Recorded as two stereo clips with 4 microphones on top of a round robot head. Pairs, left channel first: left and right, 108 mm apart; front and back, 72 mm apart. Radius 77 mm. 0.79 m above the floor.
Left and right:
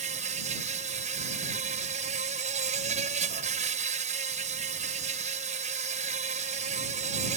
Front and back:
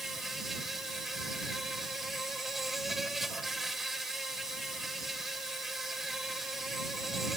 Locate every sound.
0.0 s an insect: 90° right